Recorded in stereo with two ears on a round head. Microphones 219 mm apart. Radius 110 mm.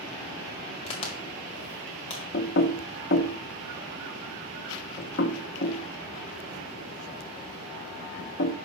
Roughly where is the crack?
Left.